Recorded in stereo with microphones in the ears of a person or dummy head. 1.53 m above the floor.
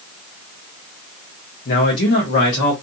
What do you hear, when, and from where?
1.6 s a man speaking: 50° left (ahead or behind), 0.7 m